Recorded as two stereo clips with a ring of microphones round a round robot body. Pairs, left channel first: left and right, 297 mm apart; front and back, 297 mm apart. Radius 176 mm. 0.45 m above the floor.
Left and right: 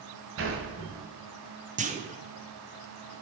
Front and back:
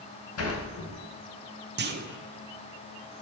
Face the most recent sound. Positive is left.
turn(degrees=-145)